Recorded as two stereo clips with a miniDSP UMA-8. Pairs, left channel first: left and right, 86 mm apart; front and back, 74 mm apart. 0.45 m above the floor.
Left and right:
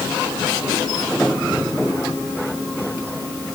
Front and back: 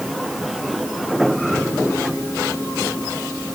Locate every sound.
Only background noise.